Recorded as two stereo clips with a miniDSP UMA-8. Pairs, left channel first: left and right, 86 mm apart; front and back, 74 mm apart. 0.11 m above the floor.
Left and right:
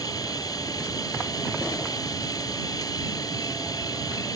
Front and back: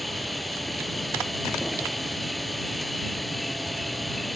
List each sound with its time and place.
0.0 s an insect: 90° left